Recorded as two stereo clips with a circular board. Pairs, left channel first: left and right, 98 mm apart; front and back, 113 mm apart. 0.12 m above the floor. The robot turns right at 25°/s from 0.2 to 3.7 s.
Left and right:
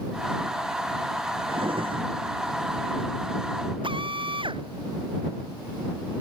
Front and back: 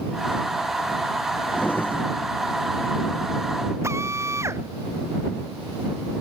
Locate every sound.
1.5 s a drawer: 80° right; by 2.1 s 65° right
3.8 s a drill: 115° right